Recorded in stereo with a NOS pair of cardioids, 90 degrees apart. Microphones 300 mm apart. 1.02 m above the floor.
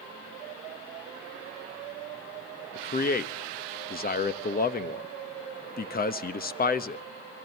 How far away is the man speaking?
About 1.0 m.